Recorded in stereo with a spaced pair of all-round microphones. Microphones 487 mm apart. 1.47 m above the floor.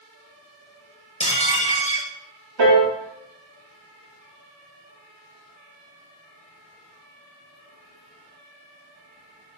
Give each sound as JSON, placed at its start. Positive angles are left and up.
{"t": 1.2, "sound": "dishes clattering", "side_deg": 15, "distance_m": 0.5}
{"t": 2.6, "sound": "a piano", "side_deg": -60, "distance_m": 0.6}